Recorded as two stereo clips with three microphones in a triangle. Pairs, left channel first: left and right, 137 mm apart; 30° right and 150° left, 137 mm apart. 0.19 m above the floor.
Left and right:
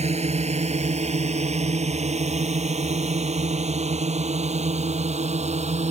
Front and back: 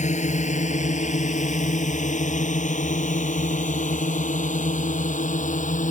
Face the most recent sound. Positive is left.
turn(degrees=-55)